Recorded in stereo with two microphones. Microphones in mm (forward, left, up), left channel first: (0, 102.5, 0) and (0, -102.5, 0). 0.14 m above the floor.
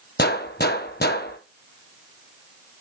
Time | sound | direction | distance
0.2 | a gunshot | 55° left (ahead or behind) | 0.9 m